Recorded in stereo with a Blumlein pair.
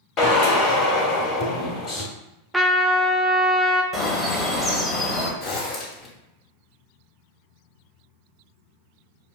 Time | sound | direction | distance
0.2 | a drill | 35° left | 1.4 m
2.5 | a trumpet | 5° right | 0.6 m
3.9 | a bird | 15° left | 1.2 m
5.4 | a zipper | 35° left | 1.2 m